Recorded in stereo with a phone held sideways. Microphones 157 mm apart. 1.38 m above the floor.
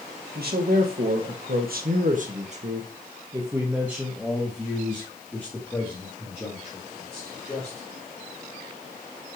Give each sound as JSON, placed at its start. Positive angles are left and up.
{"t": 0.3, "sound": "a man speaking", "side_deg": -80, "distance_m": 1.9}